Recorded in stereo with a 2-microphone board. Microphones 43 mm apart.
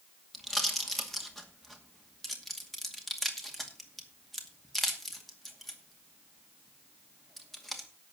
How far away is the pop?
About 2 m.